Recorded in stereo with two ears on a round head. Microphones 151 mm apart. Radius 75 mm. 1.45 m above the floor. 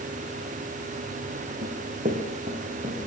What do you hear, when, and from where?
1.6 s running footsteps: 45° right (ahead or behind), 4.5 m; by 3.1 s 35° right (ahead or behind), 6 m